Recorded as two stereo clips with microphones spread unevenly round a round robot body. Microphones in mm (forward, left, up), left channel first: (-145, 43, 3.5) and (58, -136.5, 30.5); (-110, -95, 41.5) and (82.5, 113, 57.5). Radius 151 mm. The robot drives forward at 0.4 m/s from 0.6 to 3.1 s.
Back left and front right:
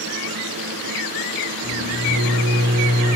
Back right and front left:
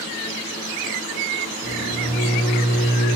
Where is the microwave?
65° right, 1.2 m; by 3.2 s 100° right, 1.2 m.